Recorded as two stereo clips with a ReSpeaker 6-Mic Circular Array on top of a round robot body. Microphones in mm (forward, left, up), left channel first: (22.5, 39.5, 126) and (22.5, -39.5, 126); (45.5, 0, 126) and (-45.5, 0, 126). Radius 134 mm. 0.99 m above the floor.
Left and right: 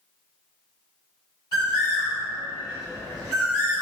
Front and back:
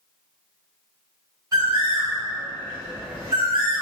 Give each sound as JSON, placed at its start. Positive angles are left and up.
{"t": 1.5, "sound": "a bird", "azimuth_deg": 125, "distance_m": 2.0}